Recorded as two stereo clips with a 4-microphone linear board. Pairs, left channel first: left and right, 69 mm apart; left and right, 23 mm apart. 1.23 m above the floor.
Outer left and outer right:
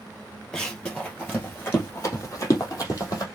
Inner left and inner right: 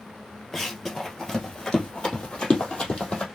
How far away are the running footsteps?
About 1.9 m.